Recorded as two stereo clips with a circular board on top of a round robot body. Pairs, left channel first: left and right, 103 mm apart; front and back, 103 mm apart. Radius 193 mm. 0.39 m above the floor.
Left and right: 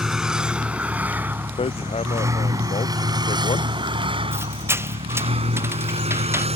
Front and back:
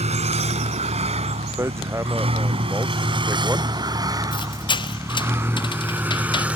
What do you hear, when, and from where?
0.0 s a vehicle: 175° right; by 6.6 s 100° right
1.6 s hammering: 115° left
4.3 s a squeak: 30° right